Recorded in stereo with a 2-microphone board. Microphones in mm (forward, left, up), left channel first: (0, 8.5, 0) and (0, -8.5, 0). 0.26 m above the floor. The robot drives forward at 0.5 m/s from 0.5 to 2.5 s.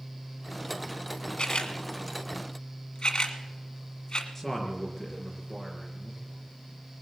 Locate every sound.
1.4 s a camera shutter: 65° left (ahead or behind), 1.3 m; by 4.2 s 55° left (ahead or behind), 1.4 m
4.3 s a man speaking: 10° left (ahead or behind), 3.5 m